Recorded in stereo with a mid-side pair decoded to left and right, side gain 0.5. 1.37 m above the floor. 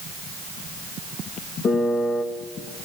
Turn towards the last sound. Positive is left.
turn(degrees=50)